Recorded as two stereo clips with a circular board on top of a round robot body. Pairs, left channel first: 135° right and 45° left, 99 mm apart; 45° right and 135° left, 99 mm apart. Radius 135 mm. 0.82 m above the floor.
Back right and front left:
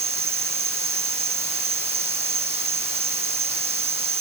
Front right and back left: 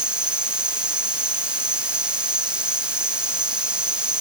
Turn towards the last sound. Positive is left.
turn(degrees=55)